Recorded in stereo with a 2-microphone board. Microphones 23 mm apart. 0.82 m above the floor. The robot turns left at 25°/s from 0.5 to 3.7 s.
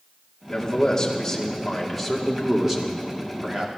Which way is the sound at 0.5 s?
40° left.